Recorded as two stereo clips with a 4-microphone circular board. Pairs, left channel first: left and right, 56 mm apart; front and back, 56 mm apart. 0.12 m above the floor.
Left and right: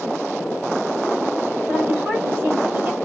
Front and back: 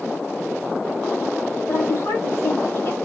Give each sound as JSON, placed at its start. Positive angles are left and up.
{"t": 1.7, "sound": "a woman speaking", "azimuth_deg": -40, "distance_m": 3.5}